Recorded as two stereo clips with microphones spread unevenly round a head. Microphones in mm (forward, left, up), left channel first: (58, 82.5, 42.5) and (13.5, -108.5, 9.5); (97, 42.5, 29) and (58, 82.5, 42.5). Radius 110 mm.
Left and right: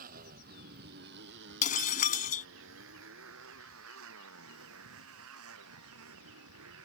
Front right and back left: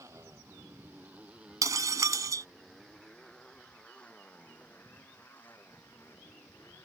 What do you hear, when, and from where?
0.0 s a motorcycle: 160° right; by 6.8 s 120° right
1.6 s breaking glass: 130° left